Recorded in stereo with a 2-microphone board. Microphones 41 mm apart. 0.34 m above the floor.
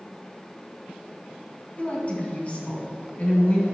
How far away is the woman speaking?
About 2.5 m.